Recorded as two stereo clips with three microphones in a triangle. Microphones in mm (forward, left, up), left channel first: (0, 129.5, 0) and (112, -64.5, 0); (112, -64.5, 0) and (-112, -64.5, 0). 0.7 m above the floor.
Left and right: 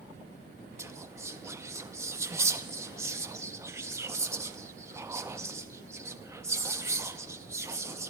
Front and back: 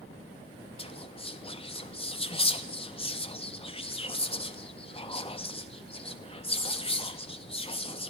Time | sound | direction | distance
0.8 | whispering | straight ahead | 0.5 m